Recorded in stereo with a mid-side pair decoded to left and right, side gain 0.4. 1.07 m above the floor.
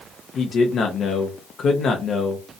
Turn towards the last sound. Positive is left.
turn(degrees=65)